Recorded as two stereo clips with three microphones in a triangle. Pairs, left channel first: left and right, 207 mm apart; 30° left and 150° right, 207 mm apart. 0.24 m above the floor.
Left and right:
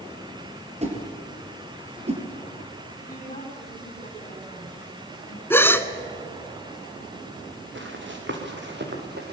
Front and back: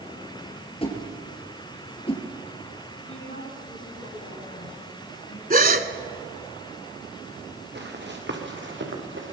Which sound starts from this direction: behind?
A gasp, at 5.5 s.